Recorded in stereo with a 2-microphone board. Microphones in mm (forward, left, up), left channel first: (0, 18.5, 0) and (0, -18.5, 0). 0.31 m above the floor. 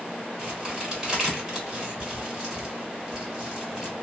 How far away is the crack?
About 1.4 m.